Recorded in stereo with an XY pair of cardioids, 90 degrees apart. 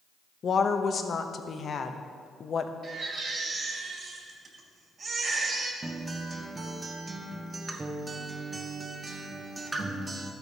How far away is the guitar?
About 1.2 m.